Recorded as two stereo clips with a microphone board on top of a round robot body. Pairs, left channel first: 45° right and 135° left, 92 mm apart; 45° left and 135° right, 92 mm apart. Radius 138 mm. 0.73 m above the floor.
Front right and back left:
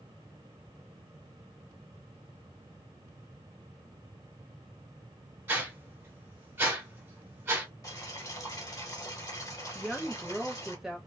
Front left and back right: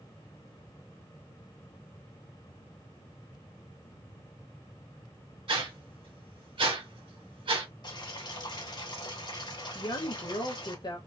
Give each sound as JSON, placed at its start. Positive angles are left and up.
{"t": 5.5, "sound": "a whoosh", "azimuth_deg": -160, "distance_m": 1.6}
{"t": 7.8, "sound": "boiling", "azimuth_deg": 10, "distance_m": 1.1}
{"t": 9.8, "sound": "a woman speaking", "azimuth_deg": 50, "distance_m": 0.6}